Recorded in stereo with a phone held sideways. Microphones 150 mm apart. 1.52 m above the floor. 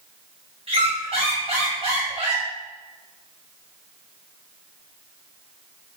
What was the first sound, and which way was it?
A squeak, 40° right (ahead or behind).